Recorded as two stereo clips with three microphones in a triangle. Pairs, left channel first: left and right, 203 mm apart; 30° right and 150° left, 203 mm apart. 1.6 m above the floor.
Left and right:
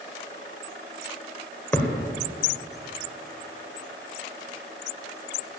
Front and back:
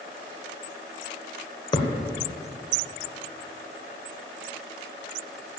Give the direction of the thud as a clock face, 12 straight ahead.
11 o'clock.